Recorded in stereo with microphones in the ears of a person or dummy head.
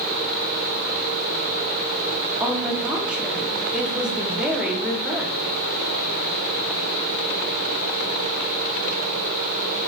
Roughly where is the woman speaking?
Centre.